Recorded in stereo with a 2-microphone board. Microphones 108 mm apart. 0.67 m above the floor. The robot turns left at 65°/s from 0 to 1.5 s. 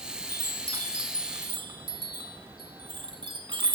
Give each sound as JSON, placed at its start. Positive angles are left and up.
{"t": 0.3, "sound": "a chime", "side_deg": -15, "distance_m": 1.6}